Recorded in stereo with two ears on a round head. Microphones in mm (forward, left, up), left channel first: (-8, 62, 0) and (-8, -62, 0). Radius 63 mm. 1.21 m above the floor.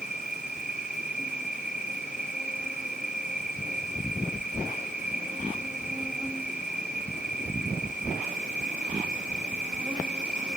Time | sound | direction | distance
0.0 | an insect | 5° right (ahead or behind) | 0.8 m